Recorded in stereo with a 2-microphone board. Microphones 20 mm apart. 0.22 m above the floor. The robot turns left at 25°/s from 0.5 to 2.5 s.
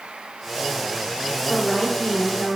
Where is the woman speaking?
40° left (ahead or behind), 3 m; by 2.6 s 20° left (ahead or behind), 3 m.